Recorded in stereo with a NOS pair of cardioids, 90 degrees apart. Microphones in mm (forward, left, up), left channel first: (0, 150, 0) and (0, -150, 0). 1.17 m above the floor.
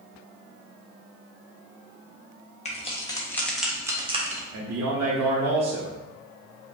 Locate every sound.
2.6 s keys jangling: 25° left, 1.4 m; by 4.4 s 30° right, 1.0 m
4.5 s a man speaking: 65° right, 2.0 m